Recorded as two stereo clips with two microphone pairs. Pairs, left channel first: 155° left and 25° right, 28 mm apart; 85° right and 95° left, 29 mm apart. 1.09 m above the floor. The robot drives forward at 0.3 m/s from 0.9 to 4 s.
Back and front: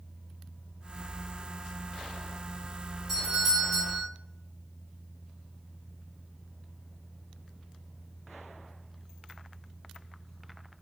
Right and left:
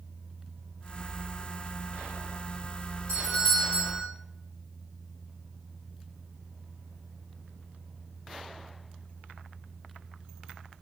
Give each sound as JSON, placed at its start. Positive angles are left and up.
{"t": 3.1, "sound": "a doorbell", "azimuth_deg": -115, "distance_m": 1.8}